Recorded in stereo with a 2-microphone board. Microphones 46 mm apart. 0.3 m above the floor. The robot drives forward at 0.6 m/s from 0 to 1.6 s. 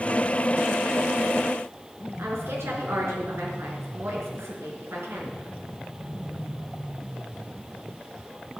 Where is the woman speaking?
75° right (ahead or behind), 5 m.